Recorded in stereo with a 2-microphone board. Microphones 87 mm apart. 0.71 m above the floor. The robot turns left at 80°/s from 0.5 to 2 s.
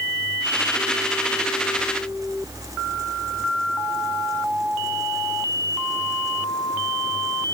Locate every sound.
Only background noise.